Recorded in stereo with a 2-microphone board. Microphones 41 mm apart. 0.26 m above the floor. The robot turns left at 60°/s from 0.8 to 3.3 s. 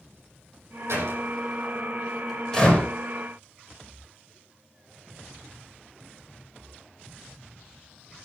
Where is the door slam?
85° right, 8 m; by 2.9 s 35° left (ahead or behind), 8 m.